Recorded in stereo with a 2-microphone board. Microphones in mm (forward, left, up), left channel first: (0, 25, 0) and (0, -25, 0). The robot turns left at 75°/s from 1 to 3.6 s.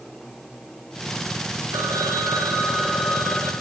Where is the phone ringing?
70° right, 2.5 m; by 3.5 s 155° left, 2.5 m.